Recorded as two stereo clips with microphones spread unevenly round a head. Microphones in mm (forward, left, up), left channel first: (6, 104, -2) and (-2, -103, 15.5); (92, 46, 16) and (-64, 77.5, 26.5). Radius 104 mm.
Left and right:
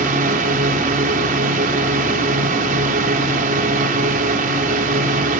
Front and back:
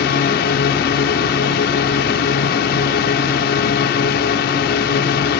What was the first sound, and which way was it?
A drone, 40° right.